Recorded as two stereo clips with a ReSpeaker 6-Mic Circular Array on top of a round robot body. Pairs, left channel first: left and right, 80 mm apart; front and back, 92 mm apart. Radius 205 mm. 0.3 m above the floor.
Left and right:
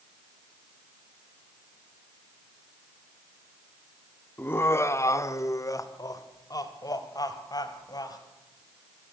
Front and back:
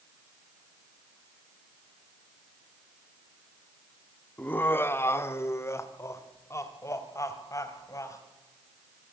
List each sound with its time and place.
4.4 s laughter: 55° left, 1.5 m